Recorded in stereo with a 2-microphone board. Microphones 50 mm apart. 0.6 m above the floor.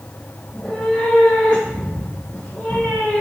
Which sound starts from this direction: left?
A cat meowing, at 0.5 s.